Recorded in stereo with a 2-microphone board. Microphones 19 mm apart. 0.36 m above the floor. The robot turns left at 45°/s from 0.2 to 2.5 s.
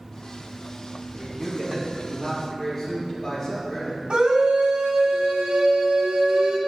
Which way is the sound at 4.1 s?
60° right (ahead or behind).